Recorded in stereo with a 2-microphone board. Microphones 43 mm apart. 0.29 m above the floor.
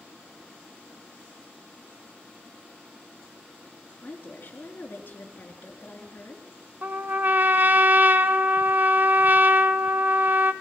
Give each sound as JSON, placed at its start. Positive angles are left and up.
{"t": 4.0, "sound": "a woman speaking", "side_deg": 45, "distance_m": 4.5}
{"t": 6.8, "sound": "a trumpet", "side_deg": -45, "distance_m": 0.9}